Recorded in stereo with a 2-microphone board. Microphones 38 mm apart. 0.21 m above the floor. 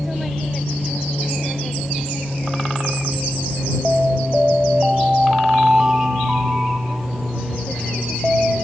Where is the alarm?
20° right (ahead or behind).